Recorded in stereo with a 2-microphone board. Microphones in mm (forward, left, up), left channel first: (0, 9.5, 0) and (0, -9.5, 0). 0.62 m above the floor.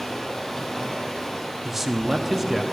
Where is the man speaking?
15° right (ahead or behind), 0.6 m.